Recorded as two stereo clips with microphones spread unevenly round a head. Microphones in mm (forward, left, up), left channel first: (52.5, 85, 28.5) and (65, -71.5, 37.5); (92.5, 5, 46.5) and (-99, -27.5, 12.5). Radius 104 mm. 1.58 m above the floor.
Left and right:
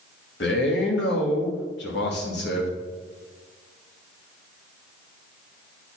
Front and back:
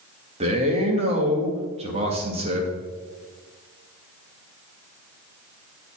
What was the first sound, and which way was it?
A man speaking, 125° left.